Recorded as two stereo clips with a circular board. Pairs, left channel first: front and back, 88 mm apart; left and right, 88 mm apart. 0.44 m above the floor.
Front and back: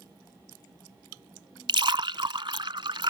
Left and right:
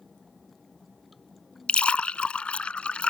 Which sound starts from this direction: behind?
A splash, at 1.7 s.